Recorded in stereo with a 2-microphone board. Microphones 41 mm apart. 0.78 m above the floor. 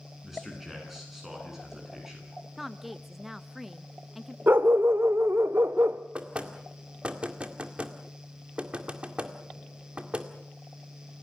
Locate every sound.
0.2 s a man speaking: 5° right (ahead or behind), 10 m; by 2.3 s 10° right (ahead or behind), 9 m
2.6 s a woman speaking: 5° right (ahead or behind), 0.6 m
4.5 s a dog barking: 65° right (ahead or behind), 0.9 m
6.2 s knocking: 30° right (ahead or behind), 2.0 m